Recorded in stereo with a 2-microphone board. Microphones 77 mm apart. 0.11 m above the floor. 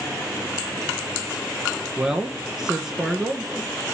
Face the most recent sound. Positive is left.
turn(degrees=-5)  # may be behind; listen again after turning